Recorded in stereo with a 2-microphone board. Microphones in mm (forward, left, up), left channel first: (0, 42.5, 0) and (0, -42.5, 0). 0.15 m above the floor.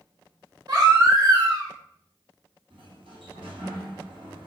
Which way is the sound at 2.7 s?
75° right (ahead or behind).